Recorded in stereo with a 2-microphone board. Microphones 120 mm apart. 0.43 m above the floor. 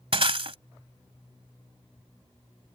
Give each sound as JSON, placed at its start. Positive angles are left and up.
{"t": 0.1, "sound": "breaking glass", "side_deg": -55}